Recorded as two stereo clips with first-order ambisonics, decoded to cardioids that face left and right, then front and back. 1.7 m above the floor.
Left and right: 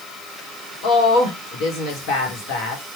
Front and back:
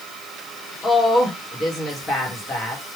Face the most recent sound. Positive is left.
turn(degrees=70)